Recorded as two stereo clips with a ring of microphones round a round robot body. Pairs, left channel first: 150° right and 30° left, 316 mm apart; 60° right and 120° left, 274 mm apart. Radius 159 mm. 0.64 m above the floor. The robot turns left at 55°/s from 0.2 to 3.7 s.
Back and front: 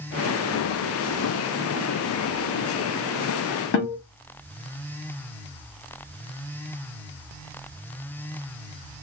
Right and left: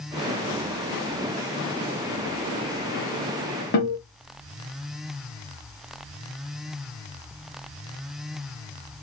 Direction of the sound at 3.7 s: 110° right.